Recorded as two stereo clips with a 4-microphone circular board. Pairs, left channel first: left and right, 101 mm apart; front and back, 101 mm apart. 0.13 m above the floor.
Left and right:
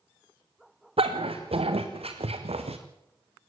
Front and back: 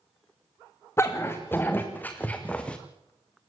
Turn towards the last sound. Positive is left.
turn(degrees=-80)